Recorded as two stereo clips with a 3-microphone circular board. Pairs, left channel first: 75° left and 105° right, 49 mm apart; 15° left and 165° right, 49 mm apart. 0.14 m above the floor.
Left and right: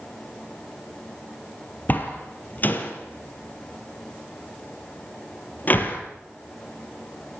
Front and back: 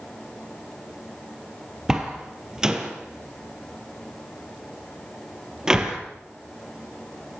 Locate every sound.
1.9 s a door slam: 120° left, 3 m